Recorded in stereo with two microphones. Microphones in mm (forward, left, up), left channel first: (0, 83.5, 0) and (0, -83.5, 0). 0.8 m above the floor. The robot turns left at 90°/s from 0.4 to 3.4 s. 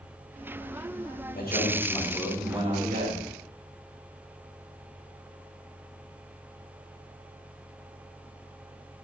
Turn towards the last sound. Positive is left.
turn(degrees=-105)